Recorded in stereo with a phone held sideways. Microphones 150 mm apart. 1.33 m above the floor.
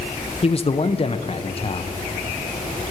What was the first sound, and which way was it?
A man speaking, 40° left (ahead or behind).